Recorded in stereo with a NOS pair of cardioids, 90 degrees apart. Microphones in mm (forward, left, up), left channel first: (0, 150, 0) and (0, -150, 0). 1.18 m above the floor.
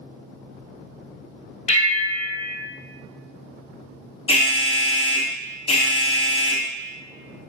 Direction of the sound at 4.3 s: 20° left.